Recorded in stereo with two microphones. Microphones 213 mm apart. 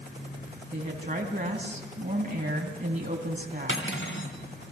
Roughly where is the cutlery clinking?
Left.